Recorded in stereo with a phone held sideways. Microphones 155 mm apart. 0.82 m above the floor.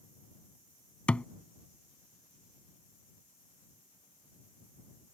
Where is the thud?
10° left (ahead or behind).